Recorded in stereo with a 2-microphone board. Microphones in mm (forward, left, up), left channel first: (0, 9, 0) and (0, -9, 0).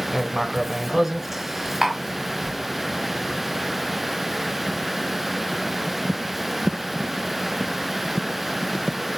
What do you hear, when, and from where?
0.1 s writing: 15° right (ahead or behind), 0.7 m
1.8 s tapping: 20° right (ahead or behind), 1.9 m